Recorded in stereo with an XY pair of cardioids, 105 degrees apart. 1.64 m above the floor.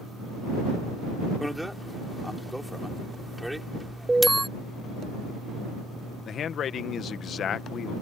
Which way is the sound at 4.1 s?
20° right.